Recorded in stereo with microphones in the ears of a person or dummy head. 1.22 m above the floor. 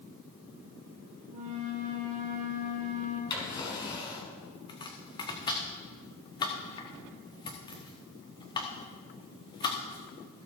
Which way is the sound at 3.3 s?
20° left (ahead or behind).